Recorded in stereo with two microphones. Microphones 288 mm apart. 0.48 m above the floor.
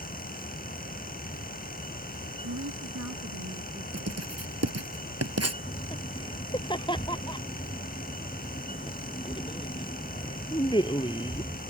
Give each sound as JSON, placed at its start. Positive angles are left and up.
{"t": 2.4, "sound": "a woman speaking", "side_deg": -70}
{"t": 3.9, "sound": "writing", "side_deg": -60}
{"t": 5.6, "sound": "laughter", "side_deg": 15}